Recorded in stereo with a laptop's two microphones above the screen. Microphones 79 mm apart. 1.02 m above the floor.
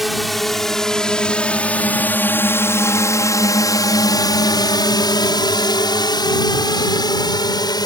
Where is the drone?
Centre (ahead or behind); by 7.9 s 60° left (ahead or behind).